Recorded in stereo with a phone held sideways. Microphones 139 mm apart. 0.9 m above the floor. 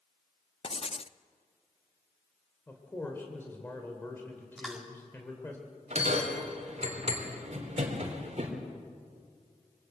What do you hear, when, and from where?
0.6 s writing: 45° left (ahead or behind), 0.5 m
2.7 s a man speaking: 15° left (ahead or behind), 3 m
4.6 s chewing: 5° right (ahead or behind), 3 m
5.9 s a bell: 50° right (ahead or behind), 3 m